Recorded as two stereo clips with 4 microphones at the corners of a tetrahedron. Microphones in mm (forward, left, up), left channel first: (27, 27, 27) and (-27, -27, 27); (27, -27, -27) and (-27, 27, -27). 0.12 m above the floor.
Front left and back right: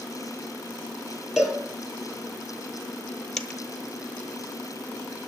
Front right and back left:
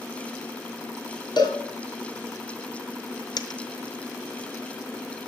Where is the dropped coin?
35° right, 0.8 m.